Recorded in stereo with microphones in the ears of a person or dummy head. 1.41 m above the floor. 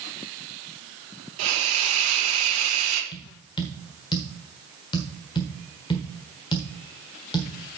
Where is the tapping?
20° left (ahead or behind), 1.4 m.